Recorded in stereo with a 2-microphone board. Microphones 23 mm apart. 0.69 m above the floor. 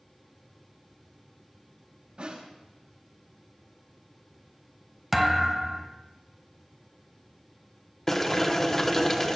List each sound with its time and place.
2.2 s a snare drum: 55° right (ahead or behind), 5 m
5.1 s a thud: 10° right (ahead or behind), 1.2 m
8.1 s boiling: 15° left (ahead or behind), 0.9 m